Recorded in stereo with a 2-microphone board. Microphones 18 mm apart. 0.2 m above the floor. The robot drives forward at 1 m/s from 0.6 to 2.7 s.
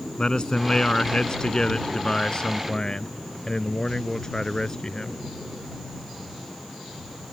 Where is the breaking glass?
No breaking glass in this recording.